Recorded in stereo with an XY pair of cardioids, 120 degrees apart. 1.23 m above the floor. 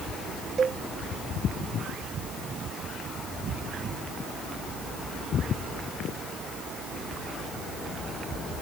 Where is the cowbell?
30° right.